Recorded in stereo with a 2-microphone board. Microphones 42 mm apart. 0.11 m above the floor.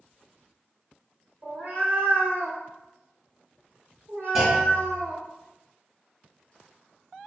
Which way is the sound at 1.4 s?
55° right (ahead or behind).